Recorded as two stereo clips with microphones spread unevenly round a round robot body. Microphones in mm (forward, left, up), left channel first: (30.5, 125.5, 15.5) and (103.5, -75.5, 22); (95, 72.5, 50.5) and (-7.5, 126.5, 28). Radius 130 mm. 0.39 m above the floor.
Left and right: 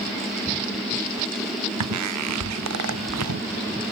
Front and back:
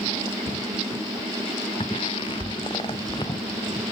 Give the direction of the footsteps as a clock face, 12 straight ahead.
3 o'clock.